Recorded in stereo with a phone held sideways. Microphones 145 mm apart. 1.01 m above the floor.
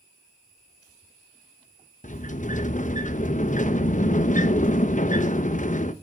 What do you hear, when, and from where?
2.0 s a sliding door: 60° left (ahead or behind), 0.8 m